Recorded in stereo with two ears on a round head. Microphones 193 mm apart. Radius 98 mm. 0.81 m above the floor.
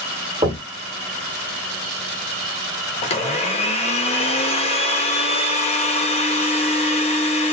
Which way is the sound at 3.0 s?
30° left (ahead or behind).